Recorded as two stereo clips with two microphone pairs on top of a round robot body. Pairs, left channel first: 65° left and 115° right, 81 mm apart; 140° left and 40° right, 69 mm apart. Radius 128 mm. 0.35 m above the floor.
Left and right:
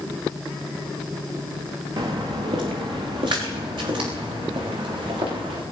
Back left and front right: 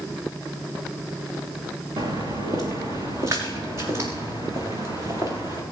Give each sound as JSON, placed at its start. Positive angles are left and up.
{"t": 2.0, "sound": "footsteps", "azimuth_deg": -80, "distance_m": 3.5}